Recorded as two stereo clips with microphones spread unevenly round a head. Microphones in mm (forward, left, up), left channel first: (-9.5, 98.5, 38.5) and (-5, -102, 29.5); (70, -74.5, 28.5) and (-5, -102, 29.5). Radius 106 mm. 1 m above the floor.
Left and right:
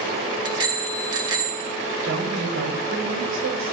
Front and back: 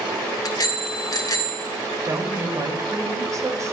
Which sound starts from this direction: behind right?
A woman speaking, at 2.0 s.